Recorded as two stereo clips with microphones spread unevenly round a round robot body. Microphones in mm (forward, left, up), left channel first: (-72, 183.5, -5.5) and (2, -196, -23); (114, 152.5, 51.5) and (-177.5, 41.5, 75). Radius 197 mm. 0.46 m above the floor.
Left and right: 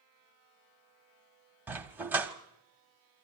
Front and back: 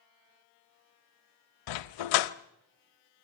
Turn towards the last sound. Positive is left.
turn(degrees=5)